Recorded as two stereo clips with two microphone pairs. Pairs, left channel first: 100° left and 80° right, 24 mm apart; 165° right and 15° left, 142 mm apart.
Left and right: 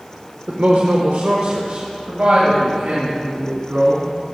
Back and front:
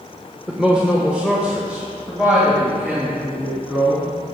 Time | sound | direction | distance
0.5 | a woman speaking | 70° right | 1.0 m